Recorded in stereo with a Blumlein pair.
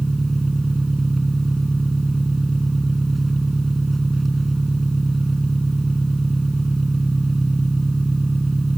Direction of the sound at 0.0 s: 10° right.